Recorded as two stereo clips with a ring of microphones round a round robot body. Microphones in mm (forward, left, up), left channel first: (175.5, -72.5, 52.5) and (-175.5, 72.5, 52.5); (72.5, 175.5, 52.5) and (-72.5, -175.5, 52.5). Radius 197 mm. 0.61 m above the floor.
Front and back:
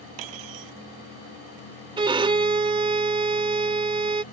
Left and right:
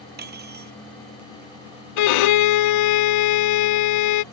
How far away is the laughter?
No laughter in this recording.